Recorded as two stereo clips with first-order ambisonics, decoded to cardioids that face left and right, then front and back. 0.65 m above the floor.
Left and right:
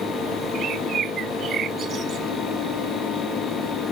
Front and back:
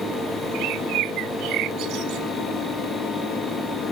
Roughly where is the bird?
Behind right.